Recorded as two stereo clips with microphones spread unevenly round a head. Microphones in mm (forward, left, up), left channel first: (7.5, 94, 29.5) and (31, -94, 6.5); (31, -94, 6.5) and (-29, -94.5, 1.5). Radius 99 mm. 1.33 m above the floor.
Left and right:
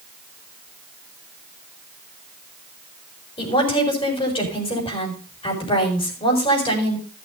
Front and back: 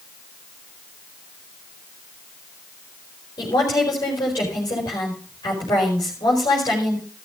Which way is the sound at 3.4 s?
35° left.